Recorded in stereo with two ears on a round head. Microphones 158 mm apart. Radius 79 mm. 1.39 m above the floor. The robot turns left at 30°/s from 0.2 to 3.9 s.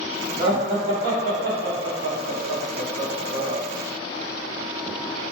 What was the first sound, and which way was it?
Laughter, 20° right (ahead or behind).